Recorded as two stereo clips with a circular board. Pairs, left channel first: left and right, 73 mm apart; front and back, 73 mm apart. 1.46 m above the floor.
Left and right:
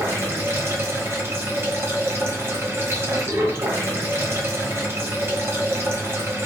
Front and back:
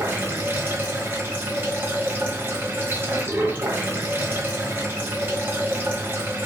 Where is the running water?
130° right, 1.0 m.